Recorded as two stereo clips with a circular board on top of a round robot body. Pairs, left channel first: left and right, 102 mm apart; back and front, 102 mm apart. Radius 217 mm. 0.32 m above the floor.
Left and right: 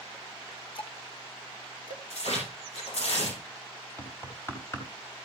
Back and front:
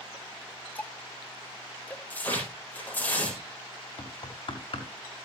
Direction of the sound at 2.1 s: 105° left.